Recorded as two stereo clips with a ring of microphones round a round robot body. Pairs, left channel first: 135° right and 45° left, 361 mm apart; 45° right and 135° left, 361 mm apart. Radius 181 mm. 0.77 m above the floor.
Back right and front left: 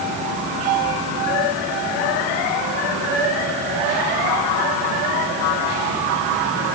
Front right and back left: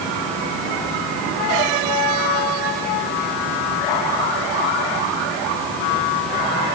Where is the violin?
I don't hear a violin.